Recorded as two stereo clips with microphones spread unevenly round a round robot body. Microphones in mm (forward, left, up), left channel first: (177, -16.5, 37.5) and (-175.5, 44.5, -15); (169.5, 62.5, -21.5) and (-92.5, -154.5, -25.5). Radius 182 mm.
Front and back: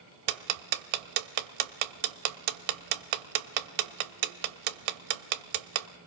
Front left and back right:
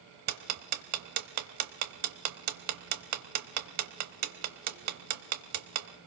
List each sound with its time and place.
0.3 s ticking: 170° left, 0.9 m